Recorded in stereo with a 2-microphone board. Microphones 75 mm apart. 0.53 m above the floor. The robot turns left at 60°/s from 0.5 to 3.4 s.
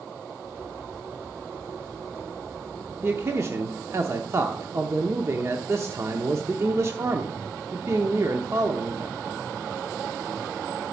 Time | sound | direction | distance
3.0 | a man speaking | 30° right (ahead or behind) | 0.9 m